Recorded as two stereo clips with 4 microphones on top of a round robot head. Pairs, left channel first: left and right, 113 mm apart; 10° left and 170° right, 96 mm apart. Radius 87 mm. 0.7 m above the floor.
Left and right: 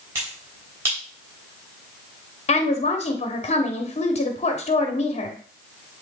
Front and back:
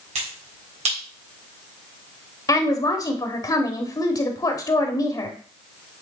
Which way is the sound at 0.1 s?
160° right.